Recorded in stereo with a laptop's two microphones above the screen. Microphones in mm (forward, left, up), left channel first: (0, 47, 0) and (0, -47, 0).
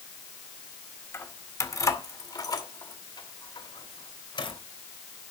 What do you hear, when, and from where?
1.1 s keys jangling: 25° left (ahead or behind), 1.9 m; by 4.6 s 55° left (ahead or behind), 3 m